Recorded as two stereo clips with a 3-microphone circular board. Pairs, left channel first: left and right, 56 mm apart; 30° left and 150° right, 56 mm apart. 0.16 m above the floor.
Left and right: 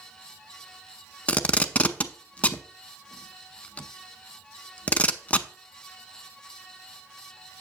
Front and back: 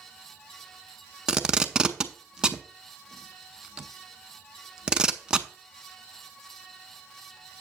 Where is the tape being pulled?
145° left, 0.5 m.